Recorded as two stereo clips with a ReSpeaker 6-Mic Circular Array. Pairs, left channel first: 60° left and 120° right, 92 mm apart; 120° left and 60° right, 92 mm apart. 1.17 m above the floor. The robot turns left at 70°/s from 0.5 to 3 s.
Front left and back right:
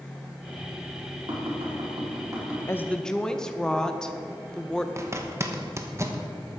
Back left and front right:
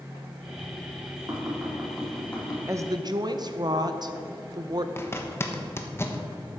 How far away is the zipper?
About 1.1 m.